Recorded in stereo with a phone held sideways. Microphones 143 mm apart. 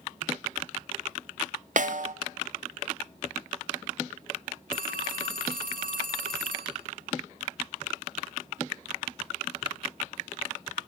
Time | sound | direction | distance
1.8 | a snare drum | 65° right (ahead or behind) | 0.9 m
4.7 | a phone ringing | 70° right (ahead or behind) | 2.5 m